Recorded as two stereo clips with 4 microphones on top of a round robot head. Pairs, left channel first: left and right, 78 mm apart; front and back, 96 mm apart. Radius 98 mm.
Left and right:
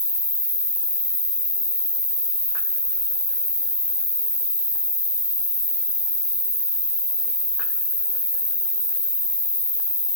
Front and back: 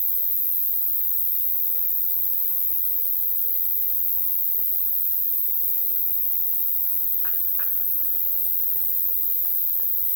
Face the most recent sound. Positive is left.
turn(degrees=-25)